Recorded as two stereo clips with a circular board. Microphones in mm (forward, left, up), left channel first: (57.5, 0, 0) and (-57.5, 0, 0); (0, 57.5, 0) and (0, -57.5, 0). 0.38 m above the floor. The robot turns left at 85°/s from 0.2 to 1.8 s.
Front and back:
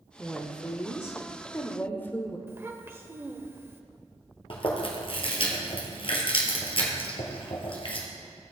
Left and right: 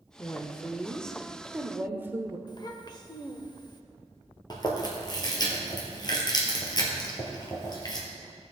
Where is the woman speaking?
90° left, 0.8 m; by 2.4 s 45° right, 0.8 m.